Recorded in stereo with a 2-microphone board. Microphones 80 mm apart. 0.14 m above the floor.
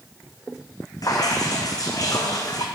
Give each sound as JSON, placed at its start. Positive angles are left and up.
{"t": 1.0, "sound": "dripping", "side_deg": 50, "distance_m": 1.3}